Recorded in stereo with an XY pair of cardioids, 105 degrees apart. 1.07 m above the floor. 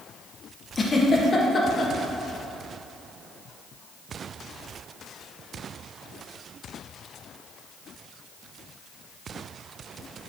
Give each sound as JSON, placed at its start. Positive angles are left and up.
{"t": 0.8, "sound": "a giggle", "azimuth_deg": 30, "distance_m": 0.6}